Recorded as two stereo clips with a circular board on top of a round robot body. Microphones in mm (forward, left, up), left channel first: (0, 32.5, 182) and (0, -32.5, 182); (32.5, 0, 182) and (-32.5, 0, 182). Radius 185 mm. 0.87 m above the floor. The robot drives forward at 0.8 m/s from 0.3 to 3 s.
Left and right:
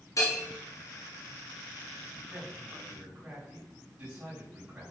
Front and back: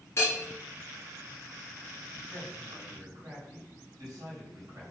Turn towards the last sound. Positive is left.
turn(degrees=-160)